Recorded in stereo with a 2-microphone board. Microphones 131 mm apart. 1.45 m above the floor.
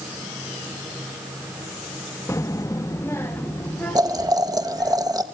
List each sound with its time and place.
2.3 s a child speaking: 20° left (ahead or behind), 0.8 m; by 5.0 s 10° left (ahead or behind), 3.5 m
4.0 s boiling: 25° right (ahead or behind), 1.4 m